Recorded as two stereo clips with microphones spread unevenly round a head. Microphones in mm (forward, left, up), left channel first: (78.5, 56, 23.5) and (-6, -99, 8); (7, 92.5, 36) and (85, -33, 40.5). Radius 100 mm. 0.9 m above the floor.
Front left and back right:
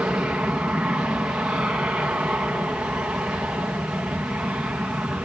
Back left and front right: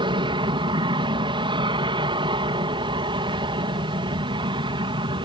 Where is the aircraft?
45° right.